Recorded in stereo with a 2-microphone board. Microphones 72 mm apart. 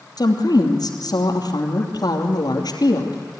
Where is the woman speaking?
65° left (ahead or behind), 2.5 m.